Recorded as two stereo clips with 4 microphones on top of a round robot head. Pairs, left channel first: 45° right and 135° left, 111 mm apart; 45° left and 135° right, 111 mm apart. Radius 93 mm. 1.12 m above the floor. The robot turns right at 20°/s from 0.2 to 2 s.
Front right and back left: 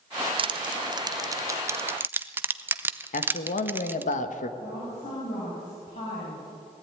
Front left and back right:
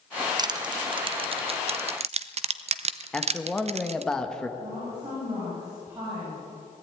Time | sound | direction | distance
0.4 | crushing | 175° left | 0.8 m
3.1 | a man speaking | 40° right | 1.2 m
4.6 | a woman speaking | 70° right | 6.5 m